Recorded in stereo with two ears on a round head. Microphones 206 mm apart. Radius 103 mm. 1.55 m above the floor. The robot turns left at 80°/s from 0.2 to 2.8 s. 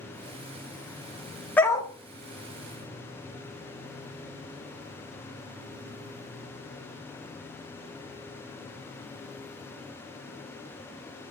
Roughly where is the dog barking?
Centre.